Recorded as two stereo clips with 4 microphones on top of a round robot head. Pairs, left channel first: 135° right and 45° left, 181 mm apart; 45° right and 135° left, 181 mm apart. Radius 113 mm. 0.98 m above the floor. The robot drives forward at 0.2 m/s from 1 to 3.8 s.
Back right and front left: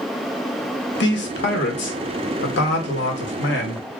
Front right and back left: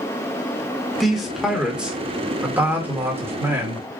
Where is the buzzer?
No buzzer in this recording.